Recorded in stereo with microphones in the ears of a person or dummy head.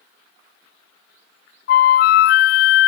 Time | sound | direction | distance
1.7 | a flute | 50° left (ahead or behind) | 0.6 m